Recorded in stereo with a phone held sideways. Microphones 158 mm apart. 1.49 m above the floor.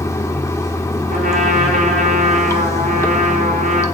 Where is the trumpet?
60° right (ahead or behind), 5 m.